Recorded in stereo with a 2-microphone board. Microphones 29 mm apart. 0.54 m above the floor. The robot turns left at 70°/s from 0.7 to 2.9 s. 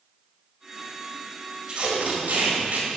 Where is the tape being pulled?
30° right (ahead or behind), 3 m; by 3.0 s 55° right (ahead or behind), 3 m.